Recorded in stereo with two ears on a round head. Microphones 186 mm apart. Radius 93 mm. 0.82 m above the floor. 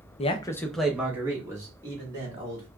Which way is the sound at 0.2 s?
30° left (ahead or behind).